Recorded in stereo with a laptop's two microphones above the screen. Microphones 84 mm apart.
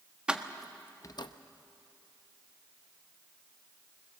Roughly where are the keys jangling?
Centre.